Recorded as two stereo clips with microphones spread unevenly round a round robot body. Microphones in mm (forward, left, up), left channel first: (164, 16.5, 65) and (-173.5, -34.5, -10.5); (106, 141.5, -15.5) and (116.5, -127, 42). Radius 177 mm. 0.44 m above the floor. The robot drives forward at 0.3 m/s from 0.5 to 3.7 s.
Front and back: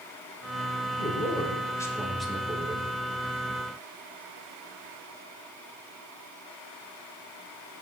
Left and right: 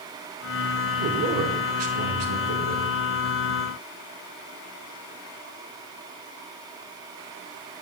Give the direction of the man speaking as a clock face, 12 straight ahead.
2 o'clock.